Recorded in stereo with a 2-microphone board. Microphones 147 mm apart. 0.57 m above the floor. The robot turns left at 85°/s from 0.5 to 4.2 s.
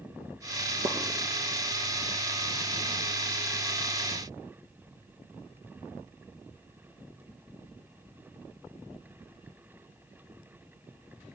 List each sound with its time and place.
0.8 s a pop: 55° right (ahead or behind), 1.8 m; by 1.0 s 45° right (ahead or behind), 1.8 m